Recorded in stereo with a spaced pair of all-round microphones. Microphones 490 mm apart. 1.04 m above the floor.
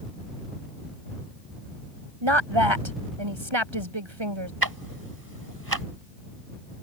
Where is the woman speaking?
70° right (ahead or behind).